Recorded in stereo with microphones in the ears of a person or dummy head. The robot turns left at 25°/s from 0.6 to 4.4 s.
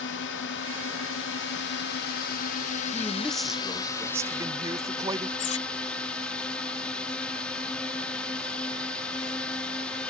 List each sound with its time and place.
0.0 s a drone: 100° left; by 10.1 s 5° left
2.9 s a man speaking: 15° left; by 5.3 s 25° right
5.4 s cutlery clinking: 40° left (ahead or behind)